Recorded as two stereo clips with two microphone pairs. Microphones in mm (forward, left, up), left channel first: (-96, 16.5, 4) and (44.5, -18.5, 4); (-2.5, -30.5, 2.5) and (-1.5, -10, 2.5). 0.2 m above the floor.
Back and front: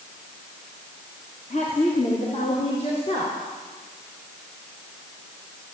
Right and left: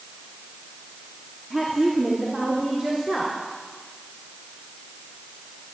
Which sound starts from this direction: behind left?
A woman speaking, at 1.5 s.